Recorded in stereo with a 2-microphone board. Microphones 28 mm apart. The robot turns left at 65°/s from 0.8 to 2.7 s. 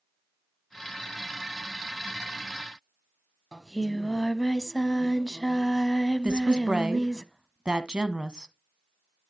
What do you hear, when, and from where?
3.5 s singing: 15° left (ahead or behind), 0.9 m
6.2 s a woman speaking: 30° right (ahead or behind), 1.2 m